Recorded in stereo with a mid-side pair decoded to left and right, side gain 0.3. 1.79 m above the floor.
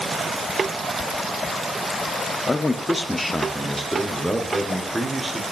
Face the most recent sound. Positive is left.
turn(degrees=-20)